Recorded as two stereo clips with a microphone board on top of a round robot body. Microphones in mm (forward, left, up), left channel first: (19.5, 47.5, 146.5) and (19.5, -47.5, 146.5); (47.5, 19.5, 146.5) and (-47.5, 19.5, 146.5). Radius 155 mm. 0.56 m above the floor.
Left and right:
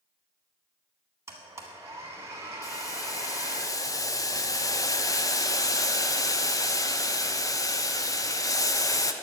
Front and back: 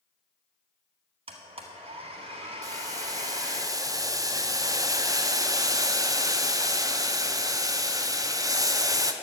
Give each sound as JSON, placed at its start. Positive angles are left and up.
{"t": 1.3, "sound": "a blender", "azimuth_deg": -155, "distance_m": 0.9}
{"t": 2.6, "sound": "boiling", "azimuth_deg": 135, "distance_m": 0.9}